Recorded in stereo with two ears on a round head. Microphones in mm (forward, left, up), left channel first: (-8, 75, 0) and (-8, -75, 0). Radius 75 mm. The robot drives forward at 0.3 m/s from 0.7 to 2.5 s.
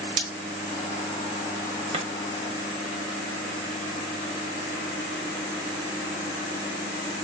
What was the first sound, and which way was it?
Breaking glass, 50° right (ahead or behind).